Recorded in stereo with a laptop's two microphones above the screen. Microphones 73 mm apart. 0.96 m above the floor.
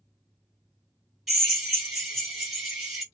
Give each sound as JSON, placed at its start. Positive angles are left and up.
{"t": 1.3, "sound": "a drill", "side_deg": 0, "distance_m": 1.6}